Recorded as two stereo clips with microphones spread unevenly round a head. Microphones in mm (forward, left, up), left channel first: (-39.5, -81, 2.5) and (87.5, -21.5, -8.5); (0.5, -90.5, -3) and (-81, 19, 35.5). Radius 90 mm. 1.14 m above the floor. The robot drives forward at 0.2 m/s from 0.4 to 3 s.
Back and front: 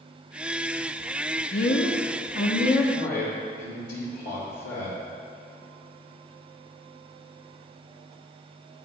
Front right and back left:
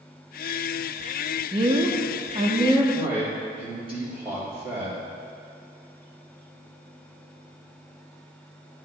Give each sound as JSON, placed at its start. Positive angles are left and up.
{"t": 1.5, "sound": "a woman speaking", "azimuth_deg": -175, "distance_m": 0.7}
{"t": 3.0, "sound": "a man speaking", "azimuth_deg": 180, "distance_m": 2.0}